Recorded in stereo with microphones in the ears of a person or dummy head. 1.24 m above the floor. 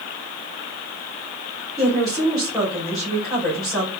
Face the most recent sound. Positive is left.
turn(degrees=5)  # may be behind; listen again after turning